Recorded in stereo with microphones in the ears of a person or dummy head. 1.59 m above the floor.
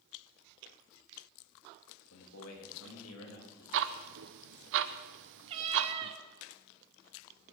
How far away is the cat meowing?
About 1.1 m.